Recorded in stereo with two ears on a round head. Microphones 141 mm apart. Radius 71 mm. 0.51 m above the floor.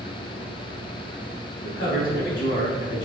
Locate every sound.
1.6 s a man speaking: 75° left (ahead or behind), 3 m